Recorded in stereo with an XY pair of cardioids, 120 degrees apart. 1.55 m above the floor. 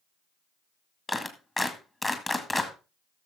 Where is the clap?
20° left, 1.8 m.